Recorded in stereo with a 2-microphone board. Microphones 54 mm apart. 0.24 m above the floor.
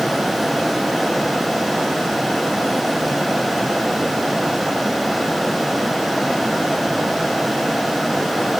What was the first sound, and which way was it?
Only background noise.